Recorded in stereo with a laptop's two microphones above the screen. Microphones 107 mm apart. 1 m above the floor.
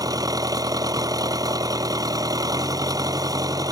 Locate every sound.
0.0 s an engine running: 35° right (ahead or behind)